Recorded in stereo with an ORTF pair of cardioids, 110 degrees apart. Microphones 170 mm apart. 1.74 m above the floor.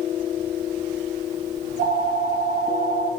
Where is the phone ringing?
60° right, 2.5 m.